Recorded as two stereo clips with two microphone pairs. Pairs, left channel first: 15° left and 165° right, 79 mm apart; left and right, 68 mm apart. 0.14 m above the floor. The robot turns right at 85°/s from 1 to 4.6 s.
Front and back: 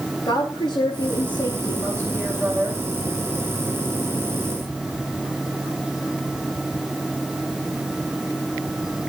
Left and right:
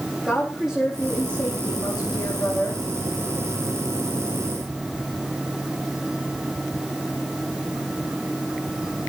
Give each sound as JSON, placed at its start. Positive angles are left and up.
{"t": 0.2, "sound": "a woman speaking", "azimuth_deg": -5, "distance_m": 7.5}